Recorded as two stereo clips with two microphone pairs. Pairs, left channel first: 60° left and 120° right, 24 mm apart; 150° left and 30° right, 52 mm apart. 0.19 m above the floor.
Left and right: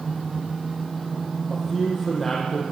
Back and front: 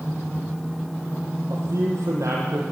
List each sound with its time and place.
1.5 s a man speaking: 20° right, 7.5 m